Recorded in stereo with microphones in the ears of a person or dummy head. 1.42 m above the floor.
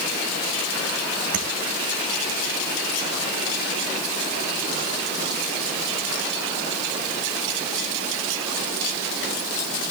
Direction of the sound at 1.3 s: 55° right (ahead or behind).